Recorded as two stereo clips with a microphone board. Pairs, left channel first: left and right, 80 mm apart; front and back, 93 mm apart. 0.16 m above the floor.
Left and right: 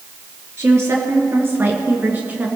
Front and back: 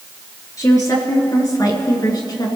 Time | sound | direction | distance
0.6 | a woman speaking | 45° right | 3 m